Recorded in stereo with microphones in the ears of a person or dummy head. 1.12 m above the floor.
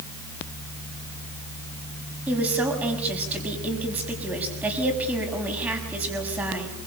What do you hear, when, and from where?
2.3 s a woman speaking: 5° right (ahead or behind), 6.5 m